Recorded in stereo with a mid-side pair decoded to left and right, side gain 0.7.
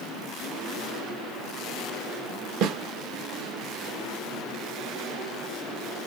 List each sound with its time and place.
2.6 s a snare drum: 55° right, 1.2 m